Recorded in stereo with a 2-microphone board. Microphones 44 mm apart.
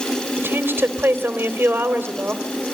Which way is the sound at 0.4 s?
55° right (ahead or behind).